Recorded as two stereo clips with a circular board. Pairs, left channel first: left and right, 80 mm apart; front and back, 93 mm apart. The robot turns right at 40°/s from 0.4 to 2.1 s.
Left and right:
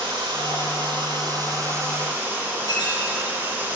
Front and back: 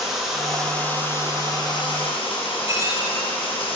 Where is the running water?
95° right, 9 m; by 3.8 s 25° right, 9 m.